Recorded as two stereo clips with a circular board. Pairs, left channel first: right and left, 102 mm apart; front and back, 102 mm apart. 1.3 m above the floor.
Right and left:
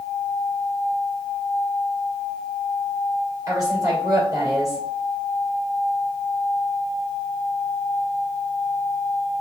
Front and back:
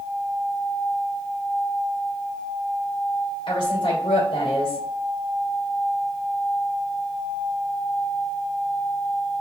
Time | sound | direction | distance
3.5 | a woman speaking | 35° left | 2.5 m